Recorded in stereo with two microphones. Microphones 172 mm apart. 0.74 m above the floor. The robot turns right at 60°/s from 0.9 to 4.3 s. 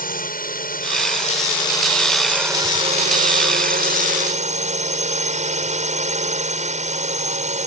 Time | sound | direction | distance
0.0 | a drone | 105° left | ?